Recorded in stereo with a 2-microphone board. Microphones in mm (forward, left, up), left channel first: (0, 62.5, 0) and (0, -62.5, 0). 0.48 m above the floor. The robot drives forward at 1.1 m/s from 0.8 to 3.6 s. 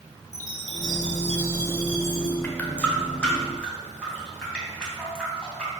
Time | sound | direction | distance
0.3 | a chime | 70° left (ahead or behind) | 1.4 m
2.4 | a running tap | 15° left (ahead or behind) | 1.1 m